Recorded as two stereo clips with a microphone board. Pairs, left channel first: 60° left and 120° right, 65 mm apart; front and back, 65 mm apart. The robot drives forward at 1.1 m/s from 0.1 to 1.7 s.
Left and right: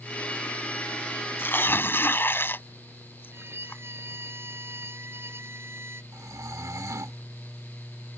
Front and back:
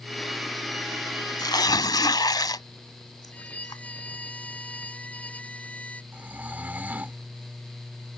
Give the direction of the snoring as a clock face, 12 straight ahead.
4 o'clock.